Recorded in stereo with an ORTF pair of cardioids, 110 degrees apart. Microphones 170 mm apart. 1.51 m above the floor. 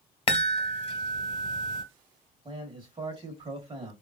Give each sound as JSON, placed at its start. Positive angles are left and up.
{"t": 0.3, "sound": "a chime", "azimuth_deg": 30, "distance_m": 1.3}
{"t": 2.5, "sound": "a man speaking", "azimuth_deg": -30, "distance_m": 1.1}